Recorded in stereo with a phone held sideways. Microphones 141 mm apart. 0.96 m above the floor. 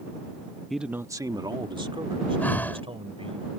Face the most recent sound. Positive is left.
turn(degrees=10)  # may be behind; listen again after turning